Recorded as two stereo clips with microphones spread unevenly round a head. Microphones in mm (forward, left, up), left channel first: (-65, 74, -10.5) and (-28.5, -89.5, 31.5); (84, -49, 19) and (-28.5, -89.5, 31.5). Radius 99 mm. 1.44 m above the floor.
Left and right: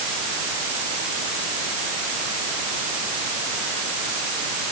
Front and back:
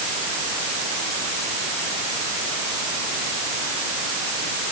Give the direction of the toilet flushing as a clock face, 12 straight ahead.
I don't hear a toilet flushing.